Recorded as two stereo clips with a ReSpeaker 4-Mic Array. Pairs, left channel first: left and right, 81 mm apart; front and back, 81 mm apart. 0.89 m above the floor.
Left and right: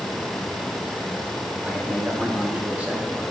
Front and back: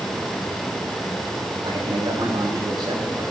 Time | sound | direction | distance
1.6 | a man speaking | 160° right | 7 m